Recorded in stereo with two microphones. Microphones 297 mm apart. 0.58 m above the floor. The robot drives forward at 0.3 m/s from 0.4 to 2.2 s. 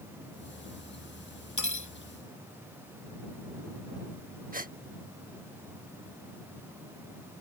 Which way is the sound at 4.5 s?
30° right (ahead or behind).